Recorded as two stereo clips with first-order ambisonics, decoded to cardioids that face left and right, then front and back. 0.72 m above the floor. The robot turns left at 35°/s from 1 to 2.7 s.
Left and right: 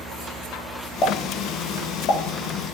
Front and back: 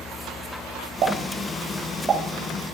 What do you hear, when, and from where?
1.0 s a pop: 145° left, 1.7 m; by 2.2 s 100° left, 1.7 m